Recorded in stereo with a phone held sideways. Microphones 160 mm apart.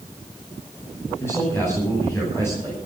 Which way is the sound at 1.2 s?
15° left (ahead or behind).